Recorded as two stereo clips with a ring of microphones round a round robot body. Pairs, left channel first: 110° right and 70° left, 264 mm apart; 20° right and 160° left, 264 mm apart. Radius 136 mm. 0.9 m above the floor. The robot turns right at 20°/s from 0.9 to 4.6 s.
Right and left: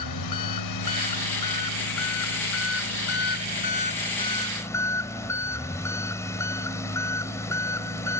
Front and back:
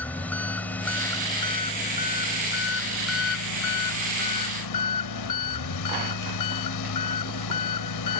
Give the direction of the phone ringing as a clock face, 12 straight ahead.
I don't hear a phone ringing.